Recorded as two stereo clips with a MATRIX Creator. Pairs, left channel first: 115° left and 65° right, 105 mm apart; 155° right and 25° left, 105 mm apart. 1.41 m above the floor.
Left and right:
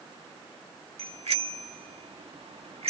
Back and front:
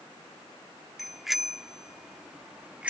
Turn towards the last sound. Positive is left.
turn(degrees=-55)